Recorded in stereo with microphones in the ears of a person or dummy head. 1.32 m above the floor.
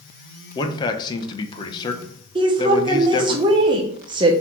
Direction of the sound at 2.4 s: 25° right (ahead or behind).